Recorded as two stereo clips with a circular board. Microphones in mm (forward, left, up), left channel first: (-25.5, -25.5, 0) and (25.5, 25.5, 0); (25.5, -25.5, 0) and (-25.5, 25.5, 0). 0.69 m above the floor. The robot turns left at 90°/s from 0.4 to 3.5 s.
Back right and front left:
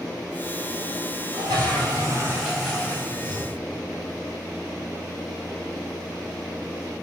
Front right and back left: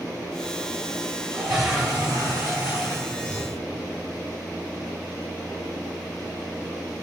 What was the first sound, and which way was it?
A toilet flushing, 70° left.